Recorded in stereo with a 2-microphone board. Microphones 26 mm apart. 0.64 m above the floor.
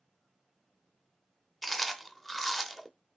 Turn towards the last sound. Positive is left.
turn(degrees=10)  # may be behind; listen again after turning